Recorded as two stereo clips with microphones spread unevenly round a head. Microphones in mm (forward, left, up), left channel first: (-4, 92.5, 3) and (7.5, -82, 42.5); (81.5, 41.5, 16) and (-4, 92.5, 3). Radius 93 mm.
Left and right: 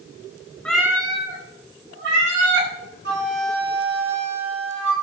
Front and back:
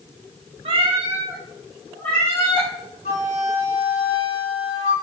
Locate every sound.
0.7 s a cat meowing: 175° right, 1.2 m; by 2.7 s 100° right, 3 m
3.0 s a flute: 50° right, 3 m